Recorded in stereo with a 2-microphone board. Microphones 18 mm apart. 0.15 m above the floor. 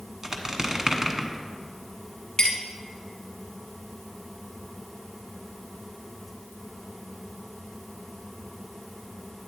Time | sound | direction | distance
0.2 | a squeak | 25° right (ahead or behind) | 0.9 m
2.4 | a clink | 35° left (ahead or behind) | 1.6 m